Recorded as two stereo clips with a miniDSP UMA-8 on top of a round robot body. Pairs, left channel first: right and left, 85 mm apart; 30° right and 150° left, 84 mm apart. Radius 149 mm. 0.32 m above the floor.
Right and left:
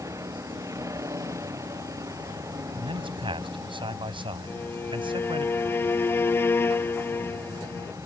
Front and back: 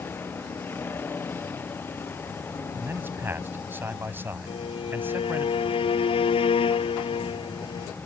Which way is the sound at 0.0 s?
35° left.